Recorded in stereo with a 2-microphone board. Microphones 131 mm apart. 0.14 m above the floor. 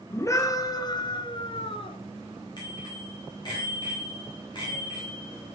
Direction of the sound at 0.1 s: 20° left (ahead or behind).